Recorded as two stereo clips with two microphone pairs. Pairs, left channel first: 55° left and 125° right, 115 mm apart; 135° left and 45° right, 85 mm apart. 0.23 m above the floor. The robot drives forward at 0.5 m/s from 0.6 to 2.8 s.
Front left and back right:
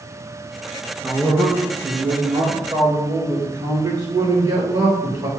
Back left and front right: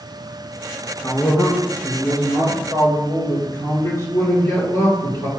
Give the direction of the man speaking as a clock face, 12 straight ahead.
6 o'clock.